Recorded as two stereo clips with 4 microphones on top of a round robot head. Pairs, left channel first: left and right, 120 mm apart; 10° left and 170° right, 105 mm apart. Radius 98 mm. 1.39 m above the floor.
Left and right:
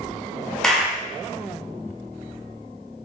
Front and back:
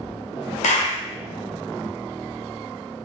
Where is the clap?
5° left, 0.9 m.